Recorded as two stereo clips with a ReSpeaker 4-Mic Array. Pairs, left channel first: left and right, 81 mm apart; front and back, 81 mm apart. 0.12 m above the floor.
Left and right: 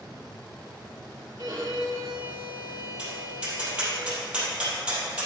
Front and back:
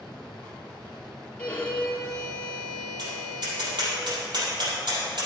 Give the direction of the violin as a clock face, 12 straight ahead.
2 o'clock.